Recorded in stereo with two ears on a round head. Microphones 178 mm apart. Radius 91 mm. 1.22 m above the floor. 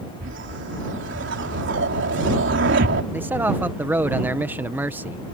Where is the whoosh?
60° right (ahead or behind).